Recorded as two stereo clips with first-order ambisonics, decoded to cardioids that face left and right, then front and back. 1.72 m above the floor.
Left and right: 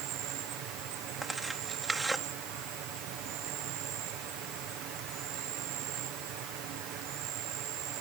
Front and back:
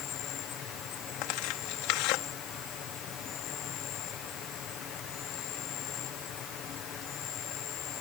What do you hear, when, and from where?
0.0 s an insect: 55° right
1.2 s tearing paper: 5° right